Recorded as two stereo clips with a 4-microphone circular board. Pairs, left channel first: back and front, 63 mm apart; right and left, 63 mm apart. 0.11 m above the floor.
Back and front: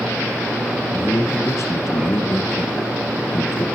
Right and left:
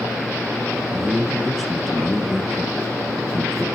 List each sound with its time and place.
0.9 s a man speaking: 175° right, 2.5 m